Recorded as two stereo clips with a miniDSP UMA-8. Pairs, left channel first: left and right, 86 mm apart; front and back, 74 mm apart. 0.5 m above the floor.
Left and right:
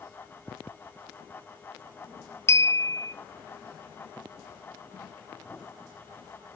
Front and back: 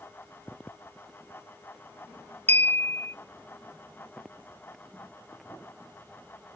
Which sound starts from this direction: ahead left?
A clink, at 2.5 s.